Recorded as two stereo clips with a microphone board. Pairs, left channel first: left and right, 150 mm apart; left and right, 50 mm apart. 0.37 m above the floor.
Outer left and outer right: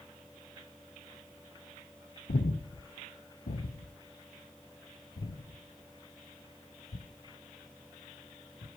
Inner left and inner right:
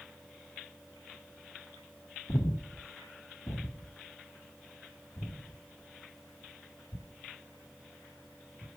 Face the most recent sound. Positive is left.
turn(degrees=80)